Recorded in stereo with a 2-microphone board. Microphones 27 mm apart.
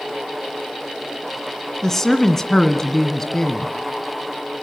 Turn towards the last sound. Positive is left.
turn(degrees=15)  # may be behind; listen again after turning